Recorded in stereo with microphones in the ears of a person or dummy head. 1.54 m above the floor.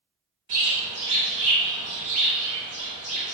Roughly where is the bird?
Right.